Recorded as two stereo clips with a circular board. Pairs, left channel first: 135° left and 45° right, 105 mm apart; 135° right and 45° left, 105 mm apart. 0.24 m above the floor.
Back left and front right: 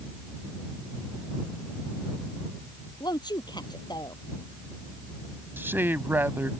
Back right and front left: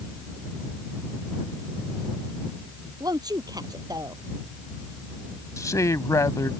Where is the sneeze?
I don't hear a sneeze.